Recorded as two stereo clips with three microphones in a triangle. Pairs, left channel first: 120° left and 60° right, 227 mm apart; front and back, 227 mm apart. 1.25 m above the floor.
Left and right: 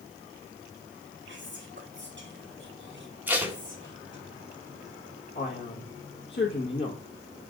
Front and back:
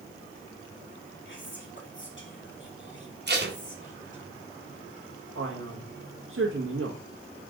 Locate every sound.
1.2 s whispering: 30° right, 1.5 m
3.3 s tape being pulled: 140° right, 1.1 m
5.3 s a man speaking: 165° left, 1.4 m